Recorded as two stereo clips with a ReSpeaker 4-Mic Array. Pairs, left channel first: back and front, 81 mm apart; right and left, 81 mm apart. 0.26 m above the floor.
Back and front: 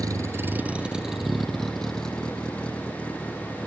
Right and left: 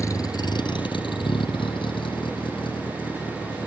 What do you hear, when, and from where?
0.0 s a vehicle: 40° right; by 3.7 s 105° right